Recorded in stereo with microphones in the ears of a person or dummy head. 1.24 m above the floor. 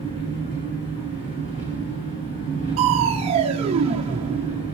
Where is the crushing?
30° right (ahead or behind), 0.7 m.